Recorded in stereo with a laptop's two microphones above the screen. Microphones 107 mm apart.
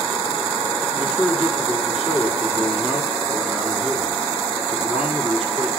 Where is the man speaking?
5° right (ahead or behind), 3 m.